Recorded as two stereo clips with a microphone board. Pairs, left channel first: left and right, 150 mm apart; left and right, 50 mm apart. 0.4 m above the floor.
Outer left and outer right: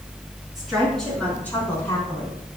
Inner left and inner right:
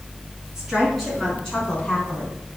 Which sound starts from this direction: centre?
A woman speaking, at 0.6 s.